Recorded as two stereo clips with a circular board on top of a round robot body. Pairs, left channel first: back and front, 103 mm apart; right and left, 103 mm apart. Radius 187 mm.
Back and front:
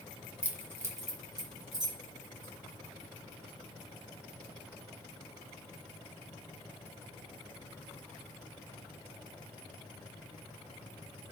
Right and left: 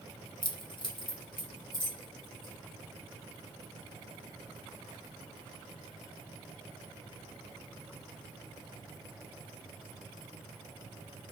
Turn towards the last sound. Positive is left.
turn(degrees=-45)